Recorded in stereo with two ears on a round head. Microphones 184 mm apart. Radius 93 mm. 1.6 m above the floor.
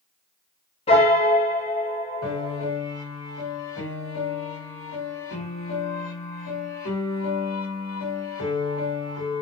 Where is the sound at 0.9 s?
30° left (ahead or behind), 0.8 m.